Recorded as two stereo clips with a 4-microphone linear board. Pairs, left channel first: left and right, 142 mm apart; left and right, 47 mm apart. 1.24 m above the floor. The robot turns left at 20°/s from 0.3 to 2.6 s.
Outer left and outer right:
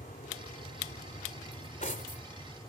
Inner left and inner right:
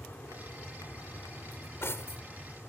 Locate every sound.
0.0 s an aircraft: 70° left (ahead or behind); by 2.7 s 35° left (ahead or behind)
1.5 s cutlery clinking: 55° left (ahead or behind); by 2.7 s 75° left (ahead or behind)